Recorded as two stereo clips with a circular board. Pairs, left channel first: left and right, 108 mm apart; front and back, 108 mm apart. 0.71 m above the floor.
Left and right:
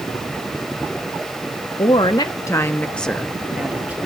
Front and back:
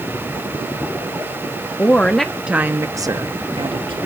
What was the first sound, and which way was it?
A woman speaking, 70° left.